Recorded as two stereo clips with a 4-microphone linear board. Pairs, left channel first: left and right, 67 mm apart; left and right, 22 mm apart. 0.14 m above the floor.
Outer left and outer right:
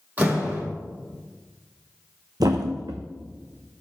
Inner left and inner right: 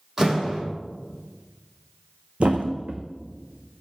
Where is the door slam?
25° right (ahead or behind), 4.5 m.